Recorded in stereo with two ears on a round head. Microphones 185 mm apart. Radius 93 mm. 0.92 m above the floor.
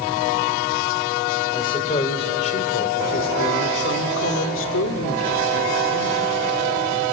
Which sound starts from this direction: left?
A man speaking, at 1.5 s.